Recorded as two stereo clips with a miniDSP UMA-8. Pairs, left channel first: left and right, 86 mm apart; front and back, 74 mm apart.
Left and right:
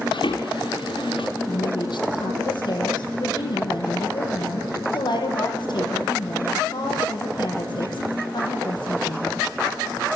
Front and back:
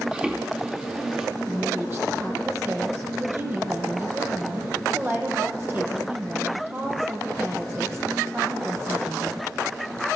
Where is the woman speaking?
120° left, 7 m.